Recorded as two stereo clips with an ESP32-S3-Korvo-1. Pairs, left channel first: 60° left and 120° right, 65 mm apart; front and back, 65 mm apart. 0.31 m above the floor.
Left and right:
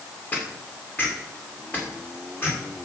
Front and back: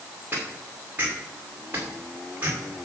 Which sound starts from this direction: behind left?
Footsteps, at 0.3 s.